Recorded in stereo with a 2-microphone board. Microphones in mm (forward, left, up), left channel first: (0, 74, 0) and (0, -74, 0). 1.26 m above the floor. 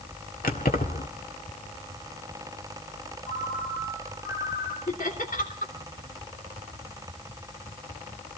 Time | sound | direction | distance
0.4 | keys jangling | 70° left (ahead or behind) | 2.0 m
3.2 | a ringtone | 80° left | 9 m
4.9 | laughter | 60° left (ahead or behind) | 3 m